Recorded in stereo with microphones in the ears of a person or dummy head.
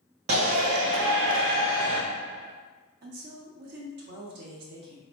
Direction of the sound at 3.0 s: 55° right (ahead or behind).